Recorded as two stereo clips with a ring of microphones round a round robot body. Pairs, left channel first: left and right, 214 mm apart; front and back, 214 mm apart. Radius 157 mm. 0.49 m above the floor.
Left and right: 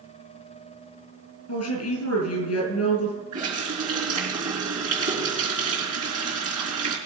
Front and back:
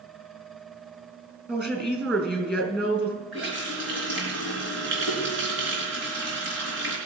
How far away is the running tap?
About 4 m.